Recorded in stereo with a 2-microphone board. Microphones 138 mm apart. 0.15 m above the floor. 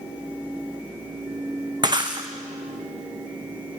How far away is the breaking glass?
About 2.5 m.